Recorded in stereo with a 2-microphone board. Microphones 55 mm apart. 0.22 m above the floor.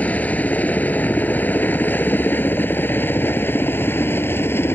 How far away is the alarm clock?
No alarm clock in this recording.